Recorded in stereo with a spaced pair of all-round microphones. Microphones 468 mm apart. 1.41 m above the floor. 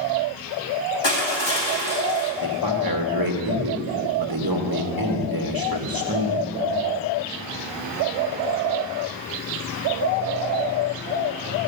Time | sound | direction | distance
1.0 | crushing | 60° left (ahead or behind) | 2 m
2.4 | a man speaking | 45° right (ahead or behind) | 1.5 m